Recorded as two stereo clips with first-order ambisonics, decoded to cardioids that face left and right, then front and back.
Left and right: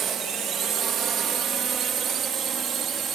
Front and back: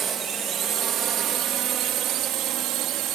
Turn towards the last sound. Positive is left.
turn(degrees=-150)